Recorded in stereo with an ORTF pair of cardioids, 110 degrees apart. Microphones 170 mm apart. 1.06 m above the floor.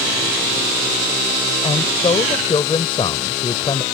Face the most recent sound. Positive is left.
turn(degrees=30)